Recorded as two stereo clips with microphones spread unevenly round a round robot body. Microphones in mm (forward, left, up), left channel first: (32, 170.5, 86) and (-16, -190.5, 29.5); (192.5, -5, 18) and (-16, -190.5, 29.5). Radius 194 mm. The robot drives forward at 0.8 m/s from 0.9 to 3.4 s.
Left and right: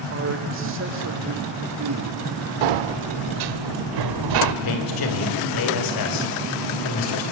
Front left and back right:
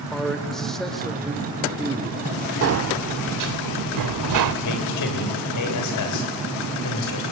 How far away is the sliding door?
About 0.8 m.